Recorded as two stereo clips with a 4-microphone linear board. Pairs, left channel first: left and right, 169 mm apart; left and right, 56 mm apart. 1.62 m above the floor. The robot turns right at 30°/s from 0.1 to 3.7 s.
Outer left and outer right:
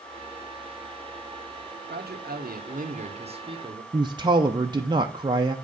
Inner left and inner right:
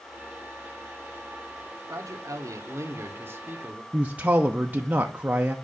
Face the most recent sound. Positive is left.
turn(degrees=-25)  # may be behind; listen again after turning